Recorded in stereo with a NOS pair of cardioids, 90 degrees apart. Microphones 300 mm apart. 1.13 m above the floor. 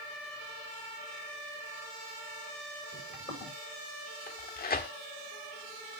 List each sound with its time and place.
2.9 s footsteps: 20° left, 9 m
4.3 s tearing paper: 30° left, 1.5 m